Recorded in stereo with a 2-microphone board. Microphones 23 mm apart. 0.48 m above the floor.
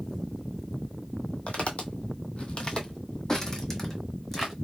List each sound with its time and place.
1.5 s footsteps: 60° left (ahead or behind), 1.0 m; by 4.5 s 10° left (ahead or behind), 1.5 m